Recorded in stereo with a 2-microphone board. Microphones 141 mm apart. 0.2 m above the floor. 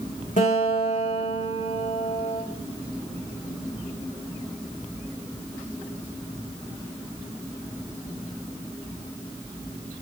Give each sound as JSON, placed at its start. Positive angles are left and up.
{"t": 0.4, "sound": "a guitar", "side_deg": 60, "distance_m": 7.0}